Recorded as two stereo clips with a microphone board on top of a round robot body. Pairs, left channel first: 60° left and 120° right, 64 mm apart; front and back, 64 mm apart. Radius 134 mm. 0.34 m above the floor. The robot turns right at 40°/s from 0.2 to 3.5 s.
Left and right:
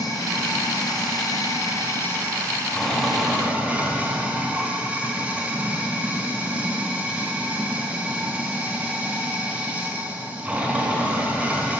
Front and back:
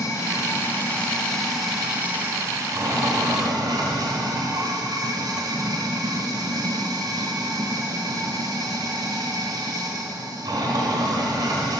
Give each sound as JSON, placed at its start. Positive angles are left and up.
{"t": 0.0, "sound": "running water", "azimuth_deg": 35, "distance_m": 1.3}